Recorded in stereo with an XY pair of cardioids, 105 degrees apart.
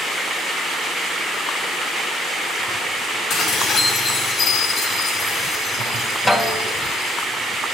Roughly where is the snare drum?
Ahead.